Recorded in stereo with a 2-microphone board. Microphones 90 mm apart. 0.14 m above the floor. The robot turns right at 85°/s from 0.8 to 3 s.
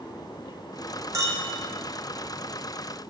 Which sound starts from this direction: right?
A clink, at 1.1 s.